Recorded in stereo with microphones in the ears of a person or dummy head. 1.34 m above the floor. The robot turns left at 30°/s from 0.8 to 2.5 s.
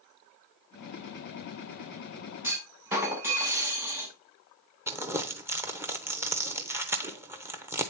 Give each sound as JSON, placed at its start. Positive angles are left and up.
{"t": 2.4, "sound": "a clunk", "side_deg": -10, "distance_m": 1.6}
{"t": 4.9, "sound": "crumpling", "side_deg": -10, "distance_m": 0.6}